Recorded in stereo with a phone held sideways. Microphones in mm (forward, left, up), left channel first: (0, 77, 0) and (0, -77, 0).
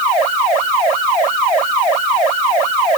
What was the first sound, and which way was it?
Only background noise.